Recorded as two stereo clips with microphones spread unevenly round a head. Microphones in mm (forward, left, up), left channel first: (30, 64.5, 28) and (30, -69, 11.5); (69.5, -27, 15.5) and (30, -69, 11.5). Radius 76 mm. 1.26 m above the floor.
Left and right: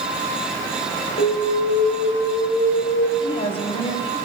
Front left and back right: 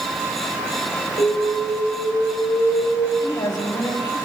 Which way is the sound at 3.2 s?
40° left.